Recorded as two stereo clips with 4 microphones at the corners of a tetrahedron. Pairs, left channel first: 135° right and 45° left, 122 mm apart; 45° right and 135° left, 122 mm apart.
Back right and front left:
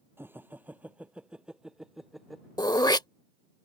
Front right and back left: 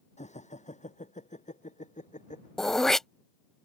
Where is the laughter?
30° right; by 2.5 s 45° right.